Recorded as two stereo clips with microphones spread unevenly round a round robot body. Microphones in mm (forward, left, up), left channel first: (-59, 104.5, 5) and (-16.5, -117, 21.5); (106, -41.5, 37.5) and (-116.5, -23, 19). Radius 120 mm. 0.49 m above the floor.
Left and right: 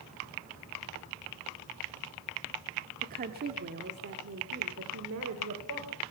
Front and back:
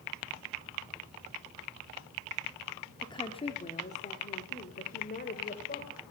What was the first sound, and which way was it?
A woman speaking, 70° right.